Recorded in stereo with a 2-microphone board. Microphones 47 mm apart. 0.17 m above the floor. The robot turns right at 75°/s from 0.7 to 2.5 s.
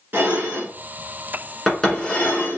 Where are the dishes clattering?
45° right (ahead or behind), 1.5 m; by 2.6 s 50° left (ahead or behind), 1.5 m.